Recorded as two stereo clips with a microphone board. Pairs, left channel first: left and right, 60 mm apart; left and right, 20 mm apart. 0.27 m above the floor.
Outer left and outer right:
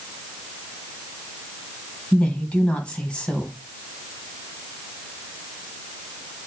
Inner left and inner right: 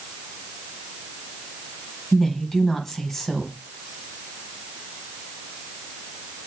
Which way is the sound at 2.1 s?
15° left (ahead or behind).